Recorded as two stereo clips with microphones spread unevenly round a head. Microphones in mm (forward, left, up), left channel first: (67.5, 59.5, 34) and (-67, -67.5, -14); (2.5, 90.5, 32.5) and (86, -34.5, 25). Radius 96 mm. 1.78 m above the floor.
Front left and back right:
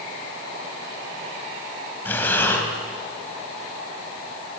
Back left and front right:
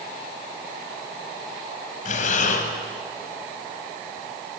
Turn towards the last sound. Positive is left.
turn(degrees=110)